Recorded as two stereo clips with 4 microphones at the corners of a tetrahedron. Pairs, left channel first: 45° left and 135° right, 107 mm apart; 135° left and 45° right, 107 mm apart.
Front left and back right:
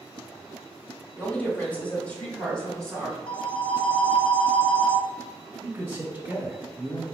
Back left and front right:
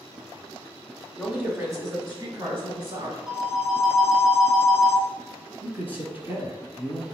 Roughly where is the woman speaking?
Ahead.